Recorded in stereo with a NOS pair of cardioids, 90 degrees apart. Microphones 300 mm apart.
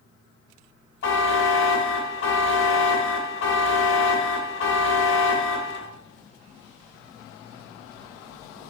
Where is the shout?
I don't hear a shout.